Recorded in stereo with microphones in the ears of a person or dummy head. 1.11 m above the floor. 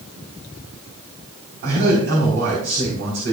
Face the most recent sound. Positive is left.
turn(degrees=-65)  # may be behind; listen again after turning